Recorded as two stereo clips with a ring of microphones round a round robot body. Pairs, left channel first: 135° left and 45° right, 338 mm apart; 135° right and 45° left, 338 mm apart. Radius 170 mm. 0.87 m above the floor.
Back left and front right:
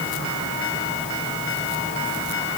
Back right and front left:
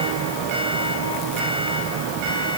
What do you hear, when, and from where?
Only background noise.